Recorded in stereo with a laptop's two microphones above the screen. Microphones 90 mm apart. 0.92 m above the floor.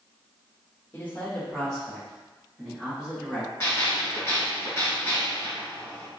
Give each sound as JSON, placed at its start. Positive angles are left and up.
{"t": 0.9, "sound": "a man speaking", "side_deg": 20, "distance_m": 1.5}
{"t": 3.6, "sound": "a gunshot", "side_deg": 30, "distance_m": 1.9}